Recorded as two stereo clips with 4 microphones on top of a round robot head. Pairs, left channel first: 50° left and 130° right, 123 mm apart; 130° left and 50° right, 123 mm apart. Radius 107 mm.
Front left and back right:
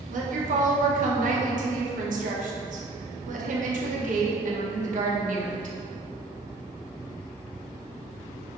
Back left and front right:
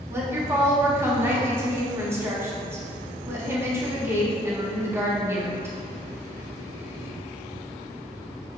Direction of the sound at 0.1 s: 120° right.